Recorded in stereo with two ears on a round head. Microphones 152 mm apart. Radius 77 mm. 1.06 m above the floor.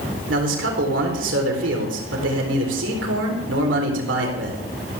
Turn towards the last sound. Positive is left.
turn(degrees=-80)